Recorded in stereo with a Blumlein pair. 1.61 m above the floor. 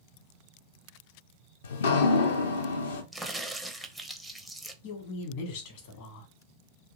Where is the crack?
Straight ahead, 0.5 m.